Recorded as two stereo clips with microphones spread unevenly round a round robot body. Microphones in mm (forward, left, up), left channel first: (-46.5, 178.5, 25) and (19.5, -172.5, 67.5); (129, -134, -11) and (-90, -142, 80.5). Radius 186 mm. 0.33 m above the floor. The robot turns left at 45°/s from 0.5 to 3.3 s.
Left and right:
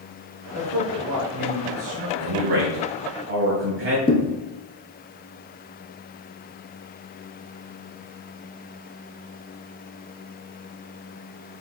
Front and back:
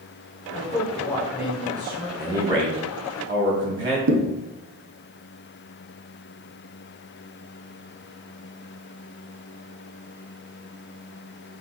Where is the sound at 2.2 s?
85° right, 2.5 m; by 4.0 s 135° right, 2.5 m.